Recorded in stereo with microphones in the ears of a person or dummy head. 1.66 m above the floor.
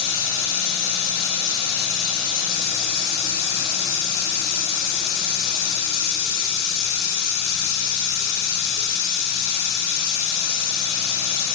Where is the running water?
80° left, 3 m.